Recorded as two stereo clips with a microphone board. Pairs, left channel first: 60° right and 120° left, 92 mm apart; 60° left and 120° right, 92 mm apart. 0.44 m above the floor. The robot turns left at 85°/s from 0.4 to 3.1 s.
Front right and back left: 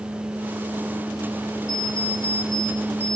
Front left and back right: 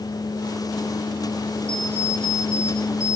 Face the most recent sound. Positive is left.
turn(degrees=-140)